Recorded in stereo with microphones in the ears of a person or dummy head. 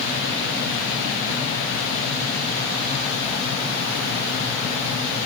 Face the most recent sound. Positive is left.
No sound to turn to.